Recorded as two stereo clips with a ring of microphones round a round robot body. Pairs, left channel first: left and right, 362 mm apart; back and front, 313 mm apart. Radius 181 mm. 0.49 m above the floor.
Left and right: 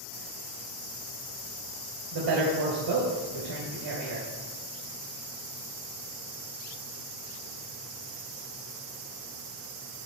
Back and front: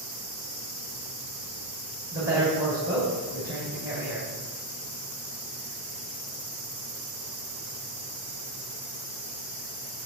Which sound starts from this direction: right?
A woman speaking, at 2.1 s.